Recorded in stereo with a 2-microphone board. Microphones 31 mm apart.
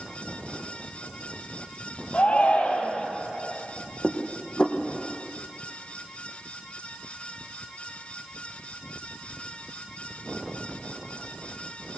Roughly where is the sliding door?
I don't hear a sliding door.